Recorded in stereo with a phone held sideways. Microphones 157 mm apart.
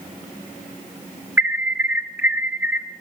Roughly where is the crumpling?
No crumpling in this recording.